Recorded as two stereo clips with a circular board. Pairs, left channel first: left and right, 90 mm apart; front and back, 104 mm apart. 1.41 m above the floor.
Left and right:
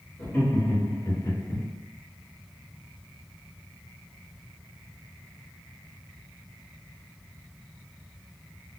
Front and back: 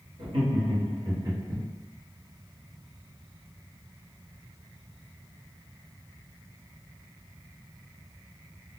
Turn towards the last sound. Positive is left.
turn(degrees=125)